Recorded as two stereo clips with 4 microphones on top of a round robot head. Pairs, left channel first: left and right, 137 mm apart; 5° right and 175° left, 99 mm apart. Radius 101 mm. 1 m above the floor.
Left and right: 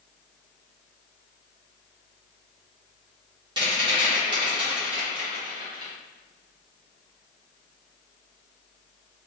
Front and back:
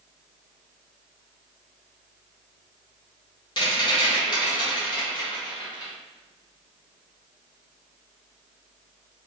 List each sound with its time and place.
3.6 s a rattle: 40° right, 1.4 m